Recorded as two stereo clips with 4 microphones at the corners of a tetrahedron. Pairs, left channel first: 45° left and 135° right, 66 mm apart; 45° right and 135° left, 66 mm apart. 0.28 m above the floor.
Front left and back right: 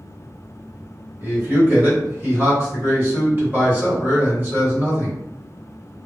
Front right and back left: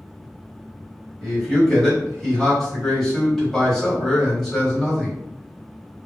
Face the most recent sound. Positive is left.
turn(degrees=-125)